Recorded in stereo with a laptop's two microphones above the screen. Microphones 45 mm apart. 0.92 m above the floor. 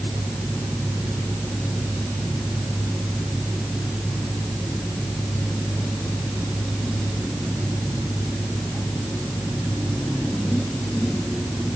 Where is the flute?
I don't hear a flute.